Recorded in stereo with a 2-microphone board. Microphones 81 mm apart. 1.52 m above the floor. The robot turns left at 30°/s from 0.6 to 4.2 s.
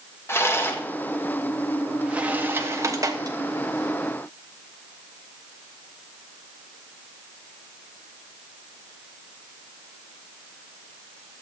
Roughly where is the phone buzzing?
No phone buzzing in this recording.